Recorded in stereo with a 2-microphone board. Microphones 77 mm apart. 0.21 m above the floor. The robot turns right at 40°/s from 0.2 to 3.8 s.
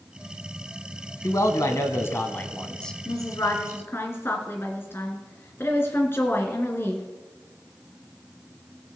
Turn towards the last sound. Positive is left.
turn(degrees=145)